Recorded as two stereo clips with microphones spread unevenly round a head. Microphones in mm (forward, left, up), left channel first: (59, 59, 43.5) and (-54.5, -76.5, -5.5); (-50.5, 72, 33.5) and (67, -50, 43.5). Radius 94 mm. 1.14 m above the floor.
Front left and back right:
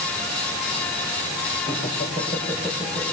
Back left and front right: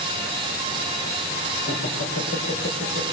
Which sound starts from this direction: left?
Laughter, at 1.6 s.